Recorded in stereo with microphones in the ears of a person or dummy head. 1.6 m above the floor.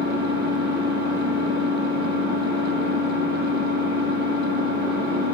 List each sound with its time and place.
0.0 s an engine running: 50° right (ahead or behind), 1.7 m